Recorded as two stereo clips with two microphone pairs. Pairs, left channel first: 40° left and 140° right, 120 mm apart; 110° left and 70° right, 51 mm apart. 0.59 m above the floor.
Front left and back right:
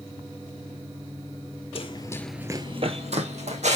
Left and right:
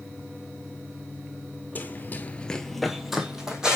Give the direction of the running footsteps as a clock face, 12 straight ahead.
10 o'clock.